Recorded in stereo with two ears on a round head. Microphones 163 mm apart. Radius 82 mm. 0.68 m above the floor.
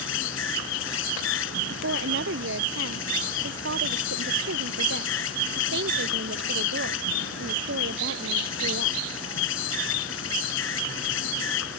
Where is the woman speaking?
75° right (ahead or behind).